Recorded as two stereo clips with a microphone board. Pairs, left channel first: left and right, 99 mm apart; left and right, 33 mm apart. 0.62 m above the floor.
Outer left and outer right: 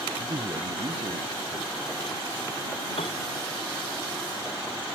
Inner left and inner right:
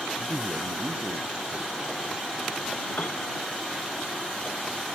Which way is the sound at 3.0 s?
80° left.